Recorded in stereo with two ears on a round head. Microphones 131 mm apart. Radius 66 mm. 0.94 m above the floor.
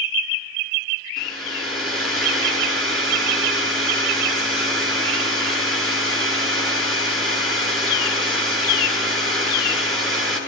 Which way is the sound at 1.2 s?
Centre (ahead or behind).